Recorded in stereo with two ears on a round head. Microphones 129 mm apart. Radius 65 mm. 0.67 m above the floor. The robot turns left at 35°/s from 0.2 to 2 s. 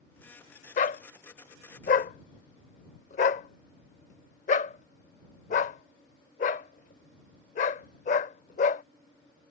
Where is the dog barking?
55° left (ahead or behind); by 8.8 s 50° left (ahead or behind).